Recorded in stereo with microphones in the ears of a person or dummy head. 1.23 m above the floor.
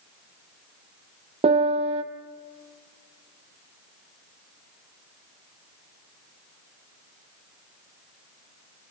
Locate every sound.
1.4 s a piano: 30° right (ahead or behind), 1.0 m